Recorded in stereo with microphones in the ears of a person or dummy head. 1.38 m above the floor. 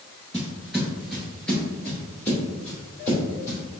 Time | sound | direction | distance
0.3 | footsteps | 5° right (ahead or behind) | 1.4 m